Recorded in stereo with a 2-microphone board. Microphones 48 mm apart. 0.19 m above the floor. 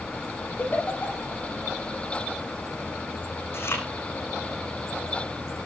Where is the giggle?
40° left (ahead or behind), 6 m.